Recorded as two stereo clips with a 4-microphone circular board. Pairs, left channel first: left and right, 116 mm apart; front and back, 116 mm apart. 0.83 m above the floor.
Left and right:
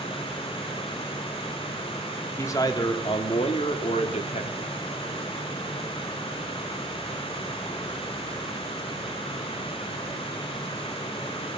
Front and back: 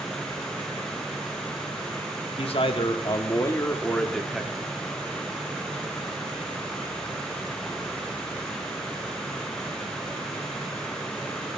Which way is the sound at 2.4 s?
25° left.